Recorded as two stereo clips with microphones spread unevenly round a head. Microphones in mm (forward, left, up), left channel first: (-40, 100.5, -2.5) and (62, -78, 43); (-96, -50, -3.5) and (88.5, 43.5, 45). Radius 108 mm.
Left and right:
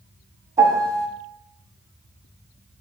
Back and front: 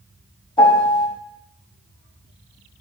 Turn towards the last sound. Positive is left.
turn(degrees=-85)